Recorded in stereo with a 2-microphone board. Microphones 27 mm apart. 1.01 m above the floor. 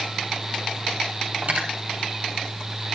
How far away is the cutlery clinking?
About 3.5 m.